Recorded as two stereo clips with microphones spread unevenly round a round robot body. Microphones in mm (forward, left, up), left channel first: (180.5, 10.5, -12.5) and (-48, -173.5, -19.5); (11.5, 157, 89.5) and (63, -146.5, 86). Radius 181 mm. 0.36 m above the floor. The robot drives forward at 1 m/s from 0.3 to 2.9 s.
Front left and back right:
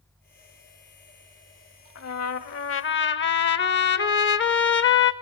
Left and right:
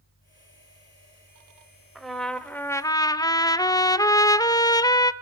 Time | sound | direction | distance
1.9 | a trumpet | 10° left | 1.6 m